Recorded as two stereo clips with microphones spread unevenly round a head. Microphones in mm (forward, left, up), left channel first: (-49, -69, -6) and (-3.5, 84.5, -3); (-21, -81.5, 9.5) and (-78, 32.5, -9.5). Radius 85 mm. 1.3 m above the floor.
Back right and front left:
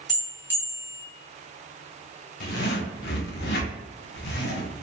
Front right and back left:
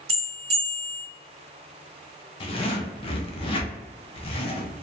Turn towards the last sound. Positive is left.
turn(degrees=-110)